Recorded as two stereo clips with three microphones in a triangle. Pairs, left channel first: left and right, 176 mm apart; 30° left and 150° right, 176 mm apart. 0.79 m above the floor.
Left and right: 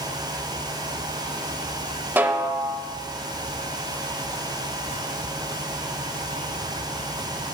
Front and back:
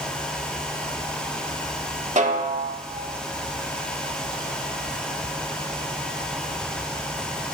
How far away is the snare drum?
About 0.6 m.